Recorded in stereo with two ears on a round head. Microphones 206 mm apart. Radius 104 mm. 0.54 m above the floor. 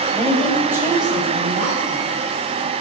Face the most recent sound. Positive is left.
turn(degrees=-45)  # may be behind; listen again after turning